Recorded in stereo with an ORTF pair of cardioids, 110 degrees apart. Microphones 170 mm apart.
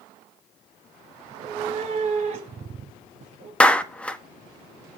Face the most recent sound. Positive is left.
turn(degrees=5)